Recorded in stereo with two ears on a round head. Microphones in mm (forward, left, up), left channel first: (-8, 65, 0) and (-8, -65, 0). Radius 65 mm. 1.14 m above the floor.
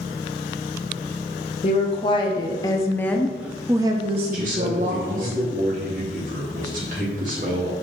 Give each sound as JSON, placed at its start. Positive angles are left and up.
{"t": 1.6, "sound": "a woman speaking", "side_deg": 40, "distance_m": 1.6}
{"t": 4.3, "sound": "a man speaking", "side_deg": -60, "distance_m": 2.0}